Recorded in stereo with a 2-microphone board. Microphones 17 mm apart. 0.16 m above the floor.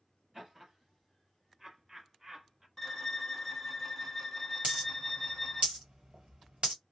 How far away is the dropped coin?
About 1.6 m.